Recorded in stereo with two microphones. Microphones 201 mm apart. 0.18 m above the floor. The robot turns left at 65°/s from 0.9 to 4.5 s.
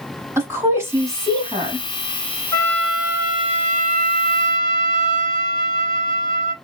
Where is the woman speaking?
15° right (ahead or behind), 1.3 m; by 1.9 s 30° right (ahead or behind), 1.3 m.